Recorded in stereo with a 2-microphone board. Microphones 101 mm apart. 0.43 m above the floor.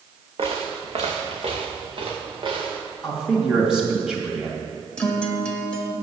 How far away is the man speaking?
About 2.5 m.